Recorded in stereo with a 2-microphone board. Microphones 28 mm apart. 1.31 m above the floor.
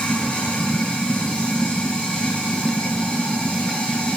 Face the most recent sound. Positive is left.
turn(degrees=35)  # may be behind; listen again after turning